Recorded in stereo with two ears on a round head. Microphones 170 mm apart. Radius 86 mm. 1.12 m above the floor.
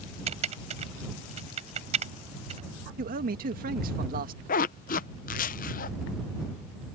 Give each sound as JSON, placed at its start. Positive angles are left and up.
{"t": 0.3, "sound": "typing on a keyboard", "side_deg": -35}
{"t": 3.0, "sound": "a man speaking", "side_deg": -50}
{"t": 4.5, "sound": "a zipper", "side_deg": 45}